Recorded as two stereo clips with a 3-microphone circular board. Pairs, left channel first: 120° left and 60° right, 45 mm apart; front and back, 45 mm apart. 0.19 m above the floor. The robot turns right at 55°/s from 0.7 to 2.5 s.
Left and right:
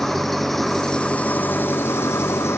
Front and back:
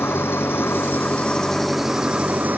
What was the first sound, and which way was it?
An engine running, 35° left.